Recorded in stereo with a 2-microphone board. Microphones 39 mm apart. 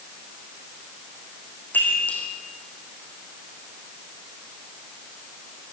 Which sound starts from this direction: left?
A chime, at 1.7 s.